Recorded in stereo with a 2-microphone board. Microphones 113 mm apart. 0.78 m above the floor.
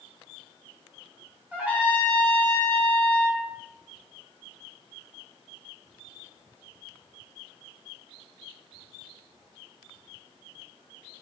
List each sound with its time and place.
1.5 s a trumpet: 15° right (ahead or behind), 0.7 m